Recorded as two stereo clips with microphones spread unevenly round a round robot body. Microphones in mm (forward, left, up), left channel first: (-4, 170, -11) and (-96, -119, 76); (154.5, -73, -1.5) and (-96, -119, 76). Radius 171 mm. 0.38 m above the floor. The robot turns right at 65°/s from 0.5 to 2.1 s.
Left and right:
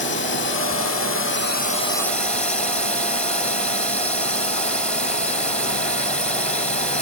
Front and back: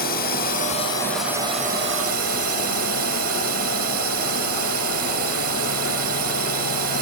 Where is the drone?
45° left; by 7.0 s 150° left.